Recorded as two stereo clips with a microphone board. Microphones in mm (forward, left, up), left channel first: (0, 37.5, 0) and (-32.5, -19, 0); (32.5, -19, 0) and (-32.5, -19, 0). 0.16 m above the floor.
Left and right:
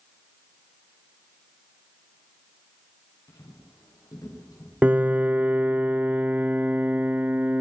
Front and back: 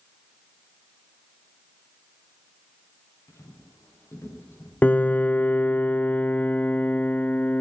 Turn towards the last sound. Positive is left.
turn(degrees=-60)